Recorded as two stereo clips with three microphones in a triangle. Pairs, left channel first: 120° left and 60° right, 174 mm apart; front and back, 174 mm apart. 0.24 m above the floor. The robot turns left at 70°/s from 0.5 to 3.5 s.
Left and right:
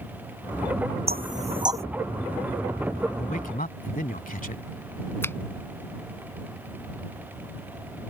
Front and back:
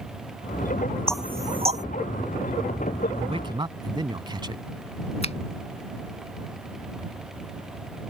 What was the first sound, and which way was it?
Knocking, 85° right.